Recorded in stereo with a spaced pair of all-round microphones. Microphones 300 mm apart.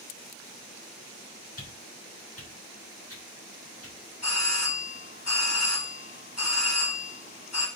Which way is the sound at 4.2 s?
65° left (ahead or behind).